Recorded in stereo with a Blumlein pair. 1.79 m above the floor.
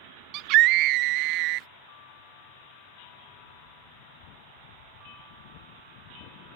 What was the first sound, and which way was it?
A scream, 40° right.